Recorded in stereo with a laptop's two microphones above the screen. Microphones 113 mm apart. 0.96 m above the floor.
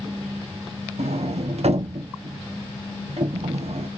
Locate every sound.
1.0 s a sliding door: 65° right (ahead or behind), 0.7 m